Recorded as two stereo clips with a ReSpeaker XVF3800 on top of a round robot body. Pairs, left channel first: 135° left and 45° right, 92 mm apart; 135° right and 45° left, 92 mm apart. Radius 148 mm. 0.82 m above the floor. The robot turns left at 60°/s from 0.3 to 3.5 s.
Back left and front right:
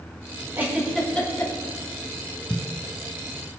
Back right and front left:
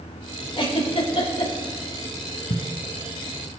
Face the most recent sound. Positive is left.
turn(degrees=150)